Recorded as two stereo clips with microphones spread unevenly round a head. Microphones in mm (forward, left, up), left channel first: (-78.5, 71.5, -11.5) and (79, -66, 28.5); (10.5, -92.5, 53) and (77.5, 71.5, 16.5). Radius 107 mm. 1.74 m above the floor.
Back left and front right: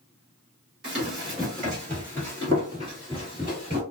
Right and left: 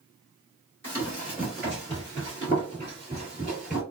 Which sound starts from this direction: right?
Running footsteps, at 0.8 s.